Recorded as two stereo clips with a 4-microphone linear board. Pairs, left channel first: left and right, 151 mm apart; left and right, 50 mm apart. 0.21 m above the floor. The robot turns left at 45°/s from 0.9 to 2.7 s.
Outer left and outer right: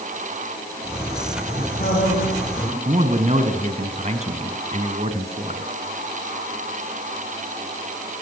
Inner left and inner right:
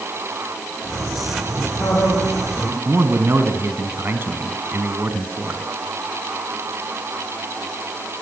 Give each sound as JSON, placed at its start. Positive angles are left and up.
{"t": 1.6, "sound": "a man speaking", "azimuth_deg": 80, "distance_m": 10.0}
{"t": 2.9, "sound": "a man speaking", "side_deg": -45, "distance_m": 1.8}